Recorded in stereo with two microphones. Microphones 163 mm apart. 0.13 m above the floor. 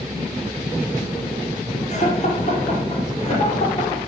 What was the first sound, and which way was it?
Laughter, 45° left (ahead or behind).